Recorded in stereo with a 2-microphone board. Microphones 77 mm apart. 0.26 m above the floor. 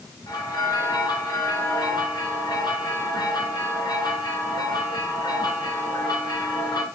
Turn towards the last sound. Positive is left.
turn(degrees=65)  # may be behind; listen again after turning